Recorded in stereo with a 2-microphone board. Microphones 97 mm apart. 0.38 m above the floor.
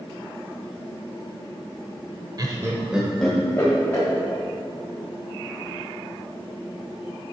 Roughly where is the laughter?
Right.